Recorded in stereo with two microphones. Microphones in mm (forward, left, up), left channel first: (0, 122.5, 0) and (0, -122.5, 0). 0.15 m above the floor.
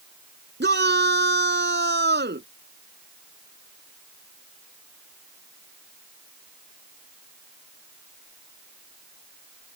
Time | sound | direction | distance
0.6 | a shout | 45° right (ahead or behind) | ?